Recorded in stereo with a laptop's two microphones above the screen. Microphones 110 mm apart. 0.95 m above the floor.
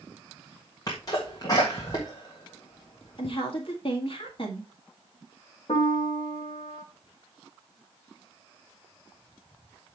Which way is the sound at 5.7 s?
55° left (ahead or behind).